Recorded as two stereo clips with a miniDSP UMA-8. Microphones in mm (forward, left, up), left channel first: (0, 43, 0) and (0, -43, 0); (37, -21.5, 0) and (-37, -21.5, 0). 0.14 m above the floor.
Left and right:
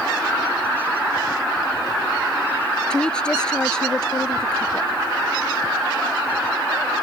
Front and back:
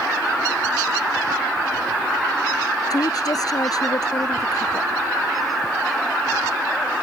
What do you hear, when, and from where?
2.9 s a woman speaking: 10° left